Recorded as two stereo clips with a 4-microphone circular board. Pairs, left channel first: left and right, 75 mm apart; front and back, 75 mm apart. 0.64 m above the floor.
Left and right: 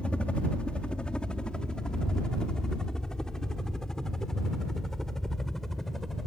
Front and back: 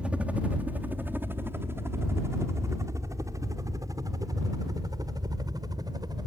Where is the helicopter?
135° left; by 6.3 s 175° left.